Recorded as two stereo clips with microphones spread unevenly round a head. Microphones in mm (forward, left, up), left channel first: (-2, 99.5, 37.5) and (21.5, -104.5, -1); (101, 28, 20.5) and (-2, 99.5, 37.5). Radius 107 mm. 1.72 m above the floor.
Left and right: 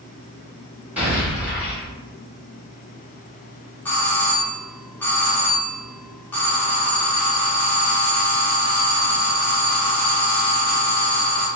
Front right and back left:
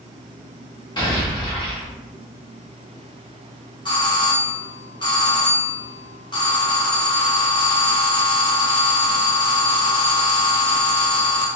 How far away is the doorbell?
About 1.1 m.